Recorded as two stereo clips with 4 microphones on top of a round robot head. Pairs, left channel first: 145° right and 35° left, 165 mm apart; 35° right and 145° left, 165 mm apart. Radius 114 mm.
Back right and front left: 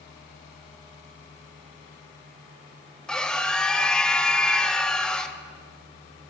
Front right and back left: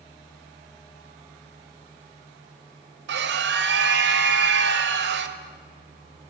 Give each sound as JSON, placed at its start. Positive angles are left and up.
{"t": 3.1, "sound": "a scream", "azimuth_deg": 130, "distance_m": 1.5}